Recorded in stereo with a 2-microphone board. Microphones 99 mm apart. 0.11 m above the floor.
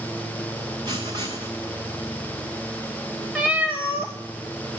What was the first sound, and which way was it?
Writing, 50° right (ahead or behind).